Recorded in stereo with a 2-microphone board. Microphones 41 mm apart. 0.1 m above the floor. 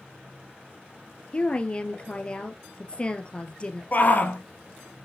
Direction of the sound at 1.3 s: 25° left (ahead or behind).